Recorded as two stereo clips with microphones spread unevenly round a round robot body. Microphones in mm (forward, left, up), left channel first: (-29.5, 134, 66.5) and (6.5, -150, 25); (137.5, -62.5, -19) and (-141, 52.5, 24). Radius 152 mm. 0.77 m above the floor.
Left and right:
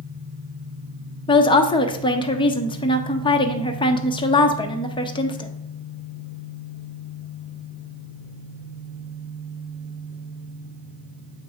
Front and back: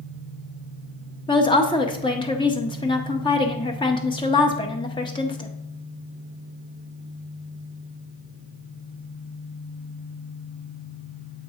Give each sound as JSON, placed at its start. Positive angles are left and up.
{"t": 1.3, "sound": "a woman speaking", "azimuth_deg": 25, "distance_m": 0.7}